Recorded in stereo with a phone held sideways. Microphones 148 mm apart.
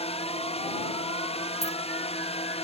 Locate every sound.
0.0 s a drone: 45° left (ahead or behind)
1.6 s keys jangling: 25° right (ahead or behind)